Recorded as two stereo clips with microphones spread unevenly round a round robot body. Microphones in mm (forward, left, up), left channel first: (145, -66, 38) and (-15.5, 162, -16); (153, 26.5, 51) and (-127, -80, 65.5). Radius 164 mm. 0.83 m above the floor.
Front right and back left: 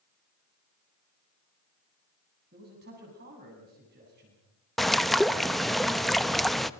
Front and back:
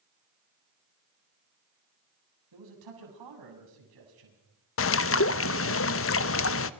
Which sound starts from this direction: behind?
A man speaking, at 2.5 s.